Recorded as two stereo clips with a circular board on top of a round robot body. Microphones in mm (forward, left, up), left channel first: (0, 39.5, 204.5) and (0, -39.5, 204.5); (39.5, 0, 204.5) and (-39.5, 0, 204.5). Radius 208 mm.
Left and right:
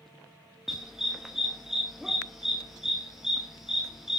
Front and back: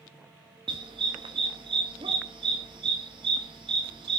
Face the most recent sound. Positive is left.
turn(degrees=-175)